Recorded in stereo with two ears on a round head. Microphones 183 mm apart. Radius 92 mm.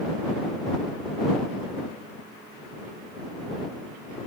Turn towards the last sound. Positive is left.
No sound to turn to.